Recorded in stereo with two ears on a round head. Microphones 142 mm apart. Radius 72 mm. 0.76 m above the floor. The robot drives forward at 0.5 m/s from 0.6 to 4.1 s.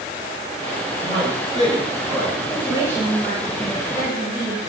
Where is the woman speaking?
15° right (ahead or behind), 4 m; by 4.6 s 10° right (ahead or behind), 5 m.